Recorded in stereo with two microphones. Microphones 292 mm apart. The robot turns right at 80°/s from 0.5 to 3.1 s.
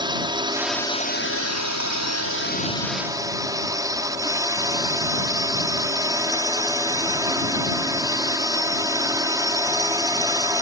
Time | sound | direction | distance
0.0 | a drone | 15° right | ?